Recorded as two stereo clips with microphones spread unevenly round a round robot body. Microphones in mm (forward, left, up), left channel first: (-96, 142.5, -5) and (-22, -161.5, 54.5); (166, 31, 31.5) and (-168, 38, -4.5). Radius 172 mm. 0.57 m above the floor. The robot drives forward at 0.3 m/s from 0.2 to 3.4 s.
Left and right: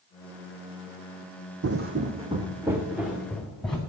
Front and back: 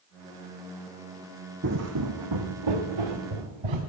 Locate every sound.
1.6 s footsteps: 120° right, 1.2 m; by 3.8 s 165° right, 3 m